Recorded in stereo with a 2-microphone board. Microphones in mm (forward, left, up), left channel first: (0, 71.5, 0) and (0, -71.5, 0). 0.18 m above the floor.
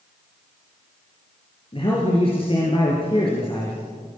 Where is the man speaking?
40° left (ahead or behind), 4 m.